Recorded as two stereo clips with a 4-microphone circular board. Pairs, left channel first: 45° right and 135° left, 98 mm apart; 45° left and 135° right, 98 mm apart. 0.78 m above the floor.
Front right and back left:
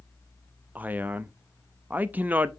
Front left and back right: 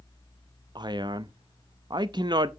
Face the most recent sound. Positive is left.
turn(degrees=-155)